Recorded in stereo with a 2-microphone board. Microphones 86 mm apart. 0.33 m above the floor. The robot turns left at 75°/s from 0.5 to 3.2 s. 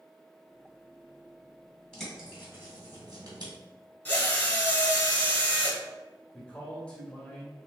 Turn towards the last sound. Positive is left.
turn(degrees=15)  # may be behind; listen again after turning